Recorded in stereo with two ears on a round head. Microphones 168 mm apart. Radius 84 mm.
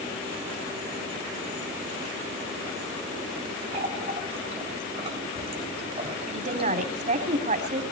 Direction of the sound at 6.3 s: 40° right (ahead or behind).